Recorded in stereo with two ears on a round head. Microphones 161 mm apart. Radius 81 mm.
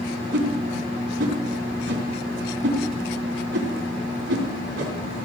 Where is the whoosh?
70° right (ahead or behind), 3.5 m.